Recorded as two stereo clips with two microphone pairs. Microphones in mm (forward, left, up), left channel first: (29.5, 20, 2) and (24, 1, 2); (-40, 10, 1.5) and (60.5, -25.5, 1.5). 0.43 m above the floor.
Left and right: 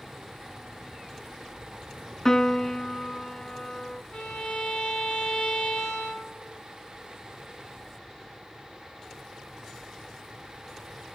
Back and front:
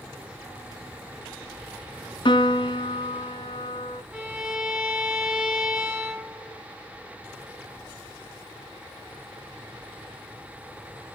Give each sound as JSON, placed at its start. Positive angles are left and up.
{"t": 2.2, "sound": "a piano", "azimuth_deg": 125, "distance_m": 0.8}
{"t": 4.1, "sound": "a violin", "azimuth_deg": 55, "distance_m": 3.0}